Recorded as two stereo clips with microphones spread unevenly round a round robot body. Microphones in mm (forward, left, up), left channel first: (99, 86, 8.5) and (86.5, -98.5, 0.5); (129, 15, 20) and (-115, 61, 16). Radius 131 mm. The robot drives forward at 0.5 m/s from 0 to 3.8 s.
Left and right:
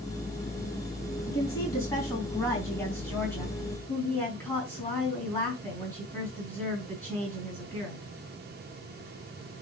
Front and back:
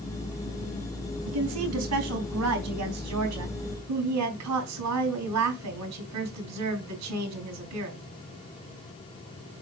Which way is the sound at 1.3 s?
160° left.